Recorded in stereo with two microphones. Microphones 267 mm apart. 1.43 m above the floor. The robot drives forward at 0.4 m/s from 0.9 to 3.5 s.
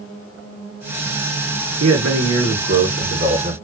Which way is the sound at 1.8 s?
70° right (ahead or behind).